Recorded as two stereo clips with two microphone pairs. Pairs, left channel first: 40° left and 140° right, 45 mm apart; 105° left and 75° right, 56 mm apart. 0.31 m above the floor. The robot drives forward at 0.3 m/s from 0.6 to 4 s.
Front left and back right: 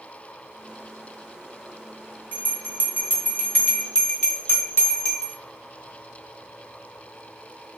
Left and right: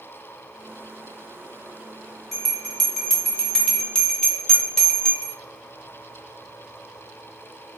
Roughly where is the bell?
Ahead.